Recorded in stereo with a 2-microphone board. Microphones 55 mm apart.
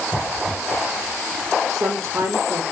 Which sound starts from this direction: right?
A woman speaking, at 1.7 s.